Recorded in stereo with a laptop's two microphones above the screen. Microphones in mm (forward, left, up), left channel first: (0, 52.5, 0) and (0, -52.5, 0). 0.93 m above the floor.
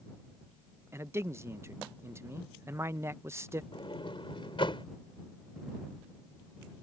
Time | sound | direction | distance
0.9 | a man speaking | 25° right (ahead or behind) | ?
3.7 | a sliding door | 55° left (ahead or behind) | ?